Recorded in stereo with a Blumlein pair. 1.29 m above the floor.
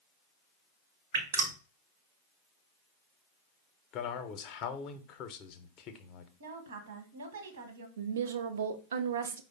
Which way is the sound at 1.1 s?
60° right.